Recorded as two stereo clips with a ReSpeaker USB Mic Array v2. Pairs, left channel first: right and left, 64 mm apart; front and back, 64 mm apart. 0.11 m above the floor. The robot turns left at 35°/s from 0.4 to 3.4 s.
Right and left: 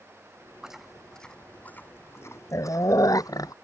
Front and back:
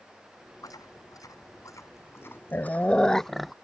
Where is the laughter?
No laughter in this recording.